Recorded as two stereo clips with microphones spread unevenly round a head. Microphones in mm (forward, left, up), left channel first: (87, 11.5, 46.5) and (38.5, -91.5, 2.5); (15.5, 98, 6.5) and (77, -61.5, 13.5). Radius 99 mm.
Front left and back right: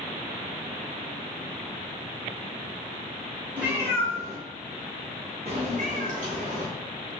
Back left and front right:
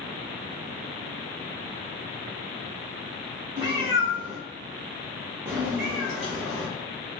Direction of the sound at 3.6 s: 25° right.